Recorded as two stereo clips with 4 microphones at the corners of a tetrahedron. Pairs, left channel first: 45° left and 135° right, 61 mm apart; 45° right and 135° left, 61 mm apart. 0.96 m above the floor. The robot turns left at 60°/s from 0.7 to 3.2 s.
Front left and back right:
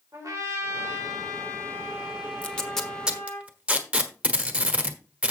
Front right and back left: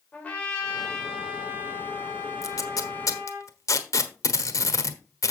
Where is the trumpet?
110° right, 3.5 m; by 3.4 s 100° left, 3.5 m.